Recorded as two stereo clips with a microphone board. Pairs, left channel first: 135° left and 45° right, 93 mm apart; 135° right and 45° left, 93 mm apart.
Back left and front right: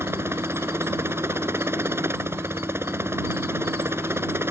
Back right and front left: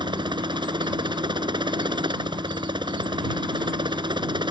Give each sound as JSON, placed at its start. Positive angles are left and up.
{"t": 0.0, "sound": "a helicopter", "azimuth_deg": 15}